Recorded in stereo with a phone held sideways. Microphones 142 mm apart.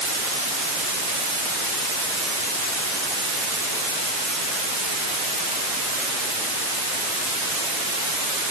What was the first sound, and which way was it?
Only background noise.